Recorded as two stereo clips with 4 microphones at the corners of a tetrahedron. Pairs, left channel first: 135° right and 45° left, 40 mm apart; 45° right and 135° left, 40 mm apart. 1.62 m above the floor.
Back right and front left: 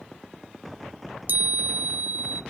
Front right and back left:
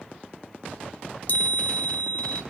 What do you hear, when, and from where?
1.3 s a chime: 5° left, 0.7 m